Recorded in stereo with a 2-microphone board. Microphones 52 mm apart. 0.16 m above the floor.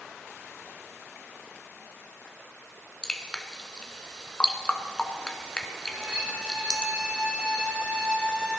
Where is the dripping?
15° left (ahead or behind), 0.9 m.